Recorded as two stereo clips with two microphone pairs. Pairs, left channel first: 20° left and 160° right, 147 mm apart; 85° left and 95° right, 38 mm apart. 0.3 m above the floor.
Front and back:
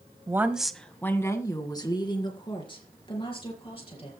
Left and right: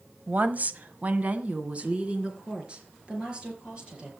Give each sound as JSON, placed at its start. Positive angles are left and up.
{"t": 0.3, "sound": "a woman speaking", "azimuth_deg": -100, "distance_m": 1.1}